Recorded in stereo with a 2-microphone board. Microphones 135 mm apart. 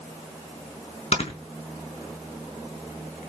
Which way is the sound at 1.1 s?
55° left (ahead or behind).